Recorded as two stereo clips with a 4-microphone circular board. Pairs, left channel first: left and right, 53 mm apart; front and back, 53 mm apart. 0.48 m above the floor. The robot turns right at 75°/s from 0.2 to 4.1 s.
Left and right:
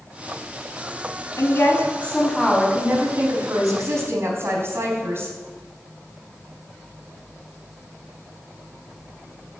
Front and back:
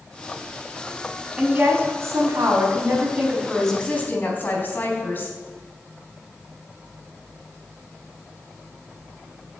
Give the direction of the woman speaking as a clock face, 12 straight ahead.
8 o'clock.